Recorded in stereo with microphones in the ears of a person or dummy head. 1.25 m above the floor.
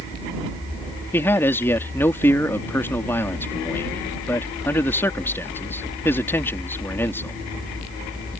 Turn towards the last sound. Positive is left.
turn(degrees=10)  # may be behind; listen again after turning